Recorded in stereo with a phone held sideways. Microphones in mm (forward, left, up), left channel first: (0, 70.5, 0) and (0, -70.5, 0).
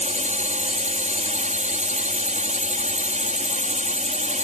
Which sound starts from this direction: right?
A drone, at 0.0 s.